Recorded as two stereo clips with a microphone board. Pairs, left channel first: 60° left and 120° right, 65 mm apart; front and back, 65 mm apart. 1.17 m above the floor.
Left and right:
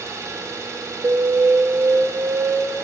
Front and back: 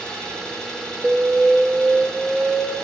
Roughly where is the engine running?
Right.